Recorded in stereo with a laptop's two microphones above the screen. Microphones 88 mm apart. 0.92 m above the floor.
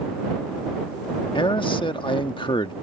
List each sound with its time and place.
1.4 s a man speaking: 70° left (ahead or behind)